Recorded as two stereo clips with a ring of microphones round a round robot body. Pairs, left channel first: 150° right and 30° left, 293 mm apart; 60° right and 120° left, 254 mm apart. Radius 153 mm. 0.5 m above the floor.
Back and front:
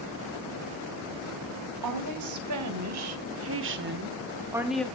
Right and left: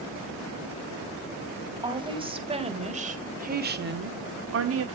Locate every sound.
1.8 s a woman speaking: 50° left, 2.5 m; by 4.8 s 125° left, 1.1 m